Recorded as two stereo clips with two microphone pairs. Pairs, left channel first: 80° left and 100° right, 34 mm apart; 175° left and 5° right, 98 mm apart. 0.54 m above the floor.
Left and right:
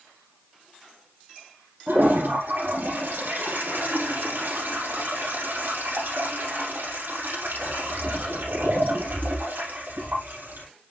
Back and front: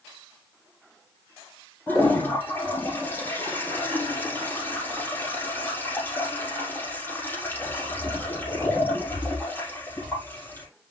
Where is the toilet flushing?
115° right, 6 m.